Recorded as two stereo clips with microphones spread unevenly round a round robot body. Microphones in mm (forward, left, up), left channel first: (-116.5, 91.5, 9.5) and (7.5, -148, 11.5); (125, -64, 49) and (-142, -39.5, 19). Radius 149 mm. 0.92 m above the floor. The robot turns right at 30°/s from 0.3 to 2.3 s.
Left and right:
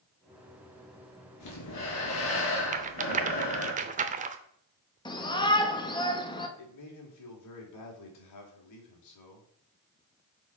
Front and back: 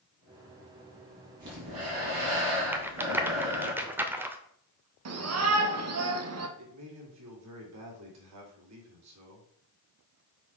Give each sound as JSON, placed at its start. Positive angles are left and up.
{"t": 1.4, "sound": "breathing", "azimuth_deg": 135, "distance_m": 3.0}
{"t": 2.7, "sound": "a rattle", "azimuth_deg": -95, "distance_m": 0.6}
{"t": 5.0, "sound": "a shout", "azimuth_deg": -170, "distance_m": 1.4}
{"t": 6.6, "sound": "a man speaking", "azimuth_deg": 135, "distance_m": 2.5}